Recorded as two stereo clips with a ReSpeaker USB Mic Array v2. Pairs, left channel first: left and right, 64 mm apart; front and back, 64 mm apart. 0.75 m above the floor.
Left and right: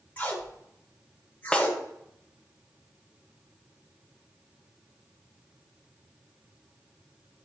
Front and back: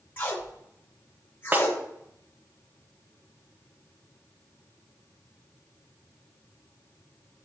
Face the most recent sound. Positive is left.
turn(degrees=155)